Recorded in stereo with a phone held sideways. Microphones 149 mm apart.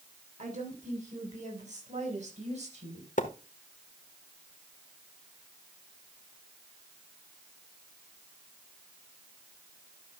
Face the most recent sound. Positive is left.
turn(degrees=60)  # may be behind; listen again after turning